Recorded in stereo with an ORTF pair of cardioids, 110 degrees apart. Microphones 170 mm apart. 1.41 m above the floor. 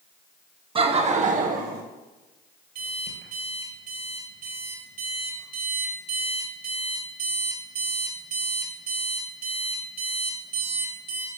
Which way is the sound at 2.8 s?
60° right.